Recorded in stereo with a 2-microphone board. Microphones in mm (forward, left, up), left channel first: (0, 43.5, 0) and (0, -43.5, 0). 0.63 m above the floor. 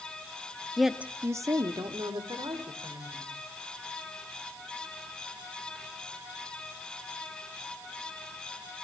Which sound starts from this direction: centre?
A woman speaking, at 0.8 s.